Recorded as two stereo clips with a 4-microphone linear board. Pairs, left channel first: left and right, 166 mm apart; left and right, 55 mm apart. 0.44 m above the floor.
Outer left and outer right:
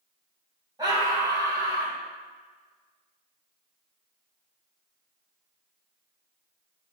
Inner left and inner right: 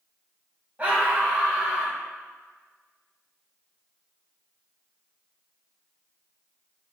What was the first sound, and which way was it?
A scream, 25° right (ahead or behind).